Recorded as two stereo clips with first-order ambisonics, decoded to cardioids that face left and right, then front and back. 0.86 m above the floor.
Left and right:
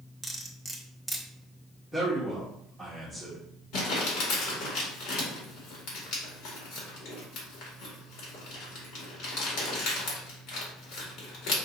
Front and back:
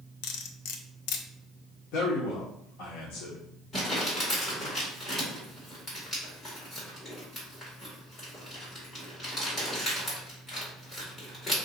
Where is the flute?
I don't hear a flute.